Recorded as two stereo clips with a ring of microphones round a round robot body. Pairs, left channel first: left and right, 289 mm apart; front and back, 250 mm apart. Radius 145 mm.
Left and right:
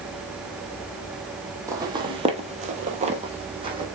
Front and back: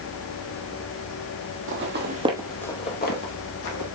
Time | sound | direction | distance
1.7 | footsteps | 165° right | 1.0 m